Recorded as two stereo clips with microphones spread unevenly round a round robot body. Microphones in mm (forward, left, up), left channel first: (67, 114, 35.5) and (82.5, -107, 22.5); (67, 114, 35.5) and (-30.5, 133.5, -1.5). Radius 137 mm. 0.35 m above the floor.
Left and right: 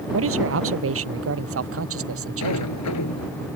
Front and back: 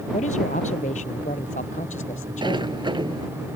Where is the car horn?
I don't hear a car horn.